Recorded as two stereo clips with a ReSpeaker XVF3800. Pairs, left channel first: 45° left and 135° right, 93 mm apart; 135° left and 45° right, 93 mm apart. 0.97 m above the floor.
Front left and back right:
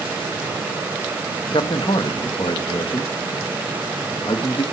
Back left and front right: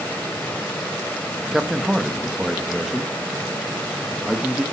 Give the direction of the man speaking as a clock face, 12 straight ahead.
11 o'clock.